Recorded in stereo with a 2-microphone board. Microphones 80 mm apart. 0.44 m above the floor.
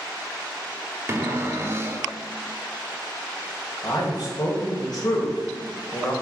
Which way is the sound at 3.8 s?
50° left (ahead or behind).